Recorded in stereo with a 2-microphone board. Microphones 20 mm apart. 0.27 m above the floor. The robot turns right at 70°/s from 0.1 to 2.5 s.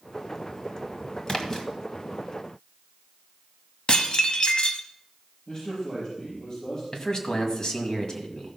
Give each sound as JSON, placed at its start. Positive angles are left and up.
{"t": 1.3, "sound": "a splash", "side_deg": 45, "distance_m": 1.2}
{"t": 3.9, "sound": "dishes clattering", "side_deg": 55, "distance_m": 1.1}
{"t": 5.5, "sound": "a man speaking", "side_deg": 40, "distance_m": 5.5}
{"t": 6.9, "sound": "a man speaking", "side_deg": 40, "distance_m": 1.9}